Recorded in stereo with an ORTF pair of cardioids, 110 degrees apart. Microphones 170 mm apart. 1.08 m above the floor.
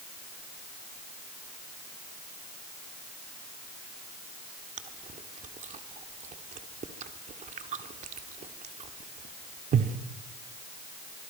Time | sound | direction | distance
4.8 | chewing | 45° right | 1.6 m